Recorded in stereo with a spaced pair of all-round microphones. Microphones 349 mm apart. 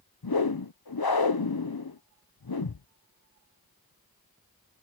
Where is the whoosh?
75° left (ahead or behind).